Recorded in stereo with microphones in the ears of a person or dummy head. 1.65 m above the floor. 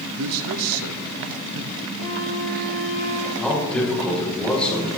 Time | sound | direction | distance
0.2 | a man speaking | 65° right (ahead or behind) | 0.9 m
2.0 | a flute | 45° left (ahead or behind) | 6.5 m
3.4 | a man speaking | 5° left (ahead or behind) | 6 m